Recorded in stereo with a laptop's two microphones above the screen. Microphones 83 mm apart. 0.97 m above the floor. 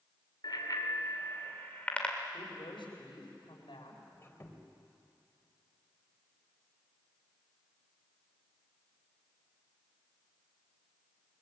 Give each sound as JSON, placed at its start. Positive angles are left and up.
{"t": 0.4, "sound": "a bicycle bell", "side_deg": 55, "distance_m": 2.0}
{"t": 2.3, "sound": "a woman speaking", "side_deg": 75, "distance_m": 5.0}
{"t": 4.1, "sound": "a squeak", "side_deg": 30, "distance_m": 3.5}